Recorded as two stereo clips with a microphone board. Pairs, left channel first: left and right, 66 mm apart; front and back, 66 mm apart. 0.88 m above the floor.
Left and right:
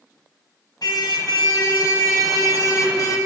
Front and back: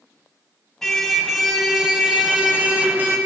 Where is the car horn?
85° left, 2 m; by 3.2 s 120° left, 2.5 m.